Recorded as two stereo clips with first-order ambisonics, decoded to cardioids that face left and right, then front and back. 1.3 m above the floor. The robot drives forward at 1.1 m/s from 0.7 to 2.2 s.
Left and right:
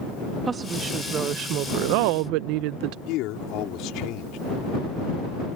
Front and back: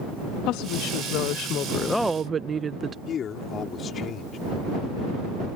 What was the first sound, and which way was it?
A woman speaking, 20° right.